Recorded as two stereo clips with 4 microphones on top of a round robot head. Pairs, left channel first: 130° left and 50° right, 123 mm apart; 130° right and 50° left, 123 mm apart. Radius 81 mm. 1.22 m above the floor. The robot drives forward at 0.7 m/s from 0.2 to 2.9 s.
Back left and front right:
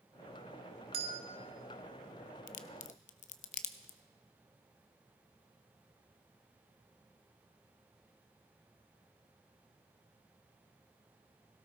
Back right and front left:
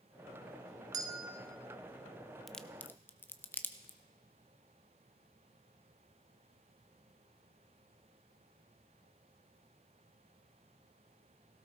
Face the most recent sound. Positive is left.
turn(degrees=155)